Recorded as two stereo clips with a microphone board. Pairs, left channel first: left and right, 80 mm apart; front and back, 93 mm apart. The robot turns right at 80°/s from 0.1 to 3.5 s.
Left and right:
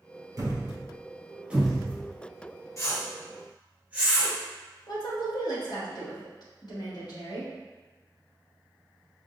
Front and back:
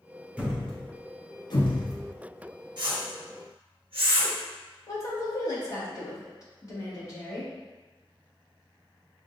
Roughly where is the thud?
Right.